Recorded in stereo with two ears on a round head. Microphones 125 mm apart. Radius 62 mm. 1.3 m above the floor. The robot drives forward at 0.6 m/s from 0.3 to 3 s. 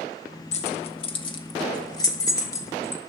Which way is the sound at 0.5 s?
50° left (ahead or behind).